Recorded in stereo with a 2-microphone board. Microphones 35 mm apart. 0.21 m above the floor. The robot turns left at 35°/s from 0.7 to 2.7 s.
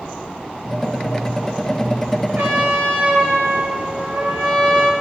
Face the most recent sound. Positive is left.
turn(degrees=-60)  # may be behind; listen again after turning